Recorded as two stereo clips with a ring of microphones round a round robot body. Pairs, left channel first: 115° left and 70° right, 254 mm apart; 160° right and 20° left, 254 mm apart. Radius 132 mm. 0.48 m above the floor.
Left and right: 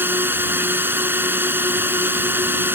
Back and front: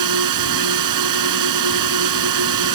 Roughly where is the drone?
Ahead.